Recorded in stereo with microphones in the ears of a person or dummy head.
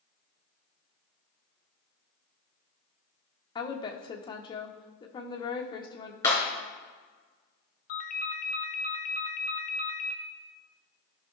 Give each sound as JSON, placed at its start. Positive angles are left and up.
{"t": 3.5, "sound": "a woman speaking", "side_deg": 20, "distance_m": 1.2}
{"t": 6.2, "sound": "breaking glass", "side_deg": 15, "distance_m": 3.5}
{"t": 7.9, "sound": "a ringtone", "side_deg": 45, "distance_m": 0.9}